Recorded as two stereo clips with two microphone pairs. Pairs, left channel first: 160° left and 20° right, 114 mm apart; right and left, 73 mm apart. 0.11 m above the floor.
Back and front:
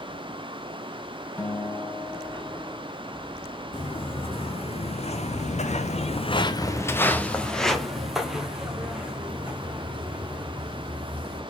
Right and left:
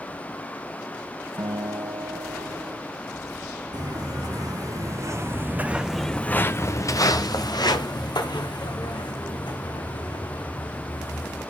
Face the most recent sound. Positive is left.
turn(degrees=-95)